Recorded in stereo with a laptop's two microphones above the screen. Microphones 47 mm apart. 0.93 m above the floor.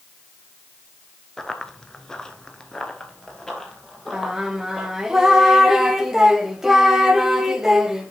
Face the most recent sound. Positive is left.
turn(degrees=-10)  # may be behind; listen again after turning